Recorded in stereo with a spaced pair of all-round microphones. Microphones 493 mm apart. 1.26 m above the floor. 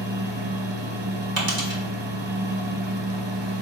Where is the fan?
60° right (ahead or behind), 1.0 m.